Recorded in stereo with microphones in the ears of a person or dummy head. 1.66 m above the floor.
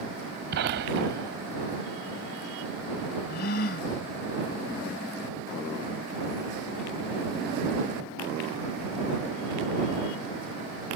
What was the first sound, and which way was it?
A gunshot, 55° right (ahead or behind).